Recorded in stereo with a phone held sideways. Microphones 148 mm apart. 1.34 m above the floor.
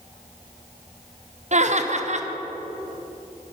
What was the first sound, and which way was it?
Laughter, 50° right (ahead or behind).